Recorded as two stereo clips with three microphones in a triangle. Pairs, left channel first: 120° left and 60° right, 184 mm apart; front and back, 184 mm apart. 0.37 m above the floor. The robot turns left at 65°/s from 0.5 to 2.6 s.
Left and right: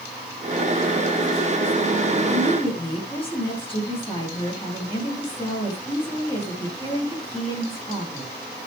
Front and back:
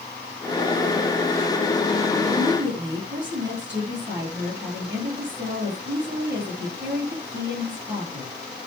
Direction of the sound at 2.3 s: 160° right.